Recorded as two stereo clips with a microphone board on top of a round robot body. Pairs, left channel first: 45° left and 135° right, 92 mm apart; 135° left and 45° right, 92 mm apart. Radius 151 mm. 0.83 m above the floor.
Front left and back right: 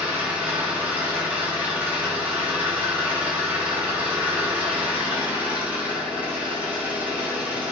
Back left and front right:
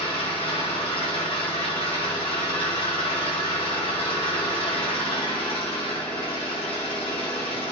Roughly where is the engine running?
Behind left.